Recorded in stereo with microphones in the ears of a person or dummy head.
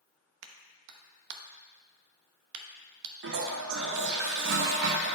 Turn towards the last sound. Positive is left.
turn(degrees=-60)  # may be behind; listen again after turning